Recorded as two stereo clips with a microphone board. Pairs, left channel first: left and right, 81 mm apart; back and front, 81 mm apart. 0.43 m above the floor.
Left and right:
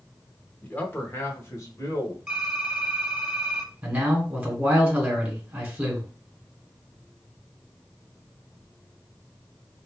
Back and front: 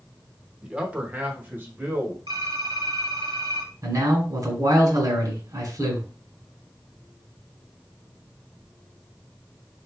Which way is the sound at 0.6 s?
60° left.